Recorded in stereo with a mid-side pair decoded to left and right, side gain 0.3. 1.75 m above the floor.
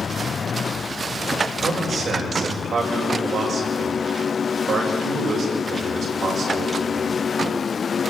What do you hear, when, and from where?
1.6 s a man speaking: 70° right, 7.5 m